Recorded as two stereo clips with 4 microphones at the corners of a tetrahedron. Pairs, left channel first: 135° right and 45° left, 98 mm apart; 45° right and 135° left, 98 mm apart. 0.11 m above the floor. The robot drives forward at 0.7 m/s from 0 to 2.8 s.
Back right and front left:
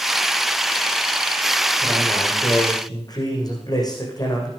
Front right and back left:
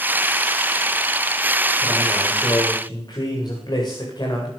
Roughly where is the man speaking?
Right.